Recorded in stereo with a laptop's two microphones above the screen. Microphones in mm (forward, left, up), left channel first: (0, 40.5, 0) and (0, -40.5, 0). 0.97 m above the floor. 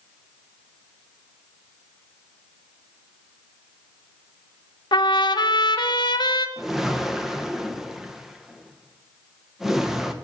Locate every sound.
4.9 s a trumpet: 65° left (ahead or behind), 1.1 m
6.6 s a whoosh: 5° right (ahead or behind), 0.9 m